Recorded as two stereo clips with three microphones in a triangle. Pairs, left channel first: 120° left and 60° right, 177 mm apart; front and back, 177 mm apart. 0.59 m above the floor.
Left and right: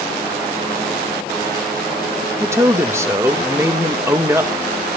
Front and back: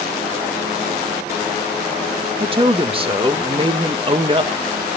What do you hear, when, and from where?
2.4 s a man speaking: 130° right, 1.4 m